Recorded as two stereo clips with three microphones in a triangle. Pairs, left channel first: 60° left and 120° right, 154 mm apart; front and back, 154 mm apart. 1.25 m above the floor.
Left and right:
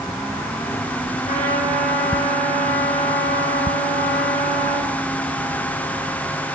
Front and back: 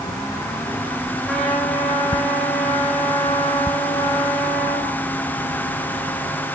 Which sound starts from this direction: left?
A trumpet, at 1.2 s.